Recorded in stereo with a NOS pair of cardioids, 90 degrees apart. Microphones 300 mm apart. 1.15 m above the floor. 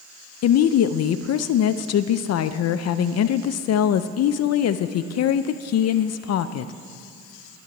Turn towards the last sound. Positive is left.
turn(degrees=55)